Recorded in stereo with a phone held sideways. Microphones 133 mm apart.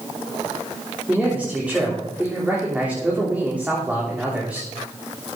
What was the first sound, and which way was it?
A man speaking, 10° right (ahead or behind).